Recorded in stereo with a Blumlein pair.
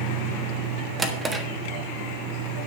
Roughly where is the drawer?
Ahead.